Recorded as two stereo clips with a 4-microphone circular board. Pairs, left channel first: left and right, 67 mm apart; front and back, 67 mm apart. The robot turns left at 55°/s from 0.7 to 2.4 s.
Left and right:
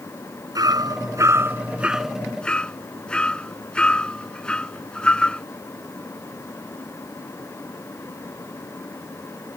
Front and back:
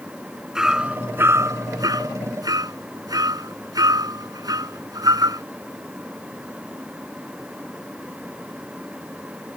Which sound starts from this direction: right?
Hammering, at 0.6 s.